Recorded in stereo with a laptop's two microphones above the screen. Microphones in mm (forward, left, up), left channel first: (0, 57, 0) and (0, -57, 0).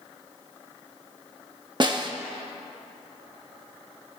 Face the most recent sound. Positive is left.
turn(degrees=-40)  # may be behind; listen again after turning